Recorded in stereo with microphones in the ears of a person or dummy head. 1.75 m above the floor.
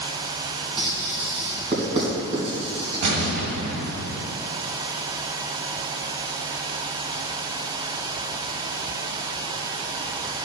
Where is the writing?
30° right (ahead or behind), 3.5 m.